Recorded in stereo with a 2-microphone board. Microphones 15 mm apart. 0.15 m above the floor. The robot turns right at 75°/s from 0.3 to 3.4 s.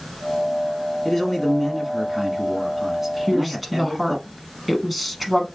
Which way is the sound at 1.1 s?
155° left.